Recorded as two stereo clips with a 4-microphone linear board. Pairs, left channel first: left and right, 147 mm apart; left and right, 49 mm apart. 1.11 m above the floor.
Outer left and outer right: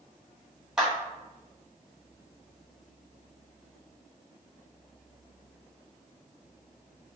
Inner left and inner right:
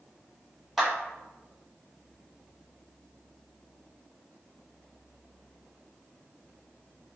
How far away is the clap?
About 1.3 m.